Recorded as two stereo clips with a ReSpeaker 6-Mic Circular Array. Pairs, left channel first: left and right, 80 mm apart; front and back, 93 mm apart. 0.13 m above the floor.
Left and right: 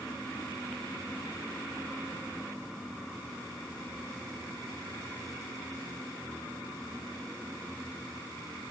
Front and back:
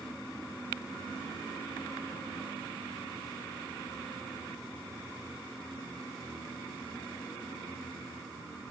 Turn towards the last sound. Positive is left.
No sound to turn to.